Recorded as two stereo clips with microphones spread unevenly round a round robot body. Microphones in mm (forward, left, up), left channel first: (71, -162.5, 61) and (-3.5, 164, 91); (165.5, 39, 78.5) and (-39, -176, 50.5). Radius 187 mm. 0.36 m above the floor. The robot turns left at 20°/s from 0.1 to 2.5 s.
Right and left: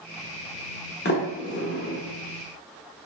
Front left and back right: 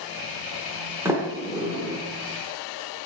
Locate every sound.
1.1 s a sliding door: 65° right, 0.9 m; by 2.0 s 85° right, 0.9 m